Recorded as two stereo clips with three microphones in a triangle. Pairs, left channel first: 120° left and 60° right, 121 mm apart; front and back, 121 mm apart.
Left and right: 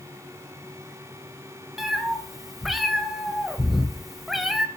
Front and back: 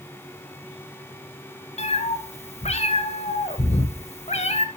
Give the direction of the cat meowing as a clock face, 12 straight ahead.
11 o'clock.